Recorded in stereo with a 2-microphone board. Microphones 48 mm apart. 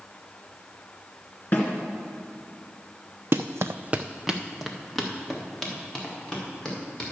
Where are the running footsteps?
55° right (ahead or behind), 0.7 m; by 7.1 s 10° left (ahead or behind), 5.5 m.